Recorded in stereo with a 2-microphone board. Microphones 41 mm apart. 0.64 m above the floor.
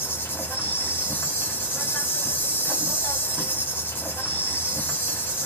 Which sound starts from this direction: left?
An insect, at 0.0 s.